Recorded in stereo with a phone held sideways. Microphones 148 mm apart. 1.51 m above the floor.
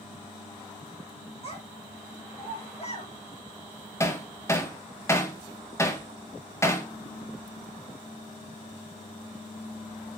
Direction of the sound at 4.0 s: 20° left (ahead or behind).